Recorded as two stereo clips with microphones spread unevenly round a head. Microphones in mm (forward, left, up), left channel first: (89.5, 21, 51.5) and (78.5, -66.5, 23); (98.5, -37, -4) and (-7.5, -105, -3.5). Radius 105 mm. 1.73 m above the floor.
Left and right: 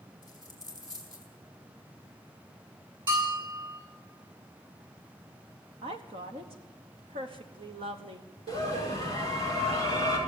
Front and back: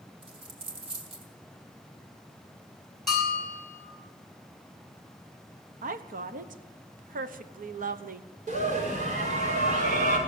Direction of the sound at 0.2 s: 170° right.